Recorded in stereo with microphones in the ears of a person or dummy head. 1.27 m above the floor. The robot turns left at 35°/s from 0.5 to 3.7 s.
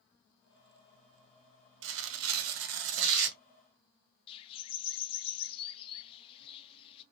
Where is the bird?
30° left (ahead or behind), 0.5 m.